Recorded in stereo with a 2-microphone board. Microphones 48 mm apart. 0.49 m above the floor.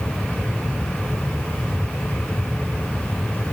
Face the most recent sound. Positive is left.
No sound to turn to.